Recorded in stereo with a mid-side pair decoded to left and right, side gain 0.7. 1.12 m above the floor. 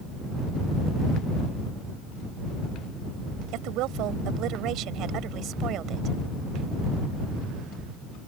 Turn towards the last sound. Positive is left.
turn(degrees=-45)